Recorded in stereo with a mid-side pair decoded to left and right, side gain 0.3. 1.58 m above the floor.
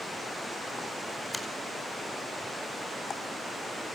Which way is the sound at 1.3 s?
10° left.